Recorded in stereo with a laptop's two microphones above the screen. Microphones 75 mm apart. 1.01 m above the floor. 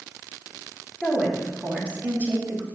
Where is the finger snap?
I don't hear a finger snap.